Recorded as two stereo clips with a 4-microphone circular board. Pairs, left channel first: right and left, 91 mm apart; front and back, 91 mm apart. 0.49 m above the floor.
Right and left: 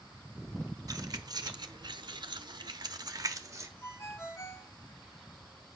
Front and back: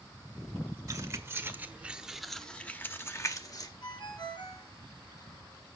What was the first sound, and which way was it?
Keys jangling, 135° left.